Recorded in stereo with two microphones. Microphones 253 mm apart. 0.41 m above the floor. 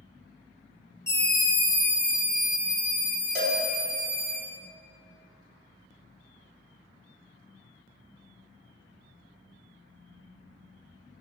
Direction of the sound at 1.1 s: 10° left (ahead or behind).